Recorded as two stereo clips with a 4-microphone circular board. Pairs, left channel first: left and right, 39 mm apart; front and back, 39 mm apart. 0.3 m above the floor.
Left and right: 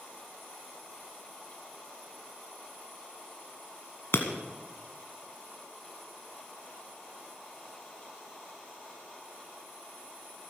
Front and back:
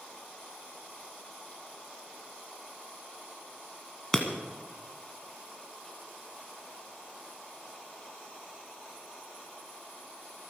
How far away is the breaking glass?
About 1.5 m.